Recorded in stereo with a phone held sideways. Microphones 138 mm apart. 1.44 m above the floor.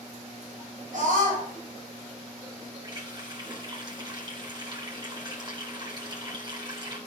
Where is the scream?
70° right (ahead or behind), 7.5 m.